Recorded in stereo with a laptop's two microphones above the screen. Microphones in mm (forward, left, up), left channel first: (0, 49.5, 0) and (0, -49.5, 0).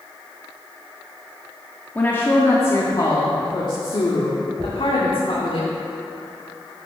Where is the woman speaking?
20° left (ahead or behind), 1.5 m; by 5.6 s 70° left (ahead or behind), 2.5 m.